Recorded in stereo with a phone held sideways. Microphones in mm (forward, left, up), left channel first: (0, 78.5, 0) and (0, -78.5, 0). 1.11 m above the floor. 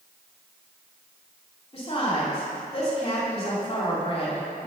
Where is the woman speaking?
35° left (ahead or behind), 2.5 m.